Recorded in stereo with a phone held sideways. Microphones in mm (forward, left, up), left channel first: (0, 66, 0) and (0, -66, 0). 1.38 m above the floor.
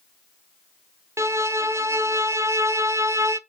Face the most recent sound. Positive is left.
turn(degrees=-20)  # may be behind; listen again after turning